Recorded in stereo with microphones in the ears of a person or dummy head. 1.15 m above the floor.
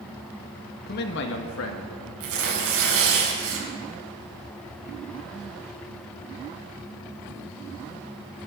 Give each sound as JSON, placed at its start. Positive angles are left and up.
{"t": 0.9, "sound": "a man speaking", "side_deg": 50, "distance_m": 1.6}
{"t": 2.2, "sound": "tearing paper", "side_deg": -85, "distance_m": 5.0}